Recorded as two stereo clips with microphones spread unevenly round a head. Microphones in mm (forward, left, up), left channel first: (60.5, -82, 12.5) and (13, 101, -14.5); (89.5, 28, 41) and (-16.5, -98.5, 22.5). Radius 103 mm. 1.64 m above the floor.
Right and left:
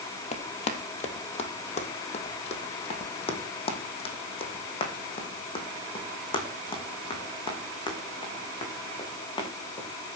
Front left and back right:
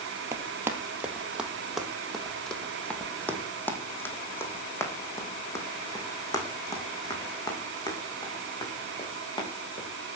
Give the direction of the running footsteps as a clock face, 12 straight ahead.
2 o'clock.